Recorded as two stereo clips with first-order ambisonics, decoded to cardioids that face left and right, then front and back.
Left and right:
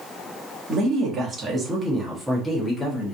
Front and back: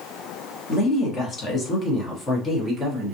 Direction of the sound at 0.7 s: 45° right.